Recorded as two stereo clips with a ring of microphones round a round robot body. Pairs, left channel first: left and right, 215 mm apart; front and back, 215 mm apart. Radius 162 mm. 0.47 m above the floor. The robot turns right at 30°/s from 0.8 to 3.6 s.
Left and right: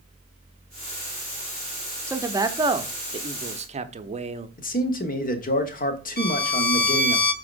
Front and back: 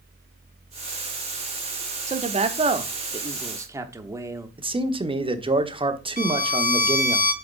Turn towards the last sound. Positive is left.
turn(degrees=50)